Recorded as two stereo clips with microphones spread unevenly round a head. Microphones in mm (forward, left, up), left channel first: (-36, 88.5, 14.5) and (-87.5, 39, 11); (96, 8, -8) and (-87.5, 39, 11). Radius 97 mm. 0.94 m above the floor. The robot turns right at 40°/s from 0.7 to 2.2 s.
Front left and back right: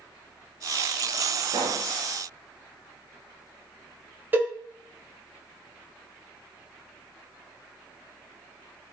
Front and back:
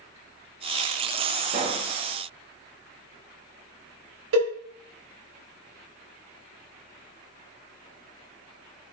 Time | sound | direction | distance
1.5 | a pop | 135° right | 0.6 m
4.3 | a cowbell | 165° left | 1.4 m